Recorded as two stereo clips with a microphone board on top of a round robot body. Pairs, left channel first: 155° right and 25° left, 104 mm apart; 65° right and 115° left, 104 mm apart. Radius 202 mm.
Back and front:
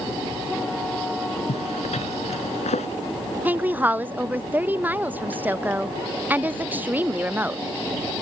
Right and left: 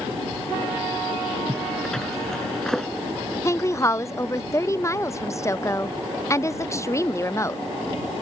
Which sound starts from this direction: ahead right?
A woman speaking, at 3.5 s.